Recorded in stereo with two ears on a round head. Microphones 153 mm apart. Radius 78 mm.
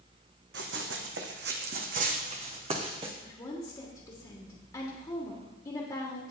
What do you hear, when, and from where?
0.5 s running footsteps: 75° right (ahead or behind), 1.8 m; by 3.1 s 30° right (ahead or behind), 2.5 m
3.2 s a woman speaking: 25° left (ahead or behind), 1.4 m